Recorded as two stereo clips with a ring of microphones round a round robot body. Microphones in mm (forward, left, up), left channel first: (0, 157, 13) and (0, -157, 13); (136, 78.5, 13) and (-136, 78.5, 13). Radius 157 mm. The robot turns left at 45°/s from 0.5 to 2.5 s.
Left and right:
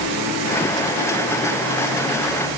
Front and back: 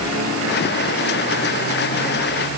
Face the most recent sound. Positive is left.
No sound to turn to.